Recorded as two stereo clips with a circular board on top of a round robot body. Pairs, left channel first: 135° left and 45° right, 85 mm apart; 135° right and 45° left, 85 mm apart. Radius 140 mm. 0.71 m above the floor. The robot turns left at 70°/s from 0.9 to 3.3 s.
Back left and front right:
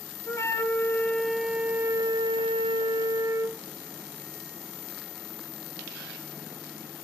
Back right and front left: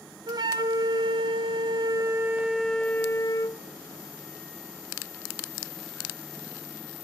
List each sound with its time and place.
0.3 s a flute: 80° left, 1.6 m; by 3.6 s 90° right, 1.6 m